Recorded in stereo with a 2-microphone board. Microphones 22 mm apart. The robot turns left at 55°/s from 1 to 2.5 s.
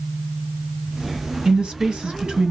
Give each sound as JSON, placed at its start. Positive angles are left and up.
{"t": 1.4, "sound": "a woman speaking", "azimuth_deg": -70, "distance_m": 1.5}